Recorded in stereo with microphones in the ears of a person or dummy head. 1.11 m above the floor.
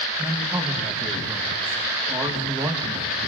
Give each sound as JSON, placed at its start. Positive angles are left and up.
{"t": 0.2, "sound": "a man speaking", "side_deg": -10, "distance_m": 1.1}